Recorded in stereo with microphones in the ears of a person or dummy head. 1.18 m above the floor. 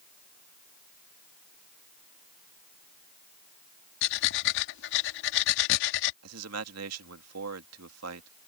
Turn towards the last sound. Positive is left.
turn(degrees=-80)